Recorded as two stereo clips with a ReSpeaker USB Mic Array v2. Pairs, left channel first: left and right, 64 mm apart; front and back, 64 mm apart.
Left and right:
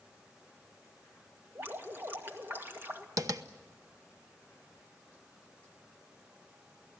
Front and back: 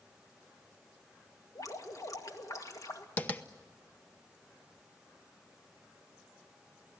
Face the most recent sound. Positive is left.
turn(degrees=-65)